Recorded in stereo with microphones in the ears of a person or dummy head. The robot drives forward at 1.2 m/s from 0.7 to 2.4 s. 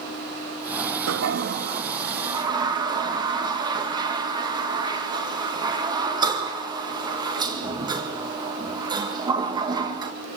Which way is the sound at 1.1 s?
80° right.